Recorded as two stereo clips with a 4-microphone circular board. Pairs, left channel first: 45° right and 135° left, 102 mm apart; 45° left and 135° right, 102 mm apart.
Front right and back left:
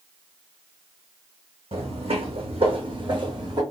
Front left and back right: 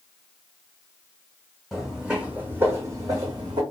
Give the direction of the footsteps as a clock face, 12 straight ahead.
7 o'clock.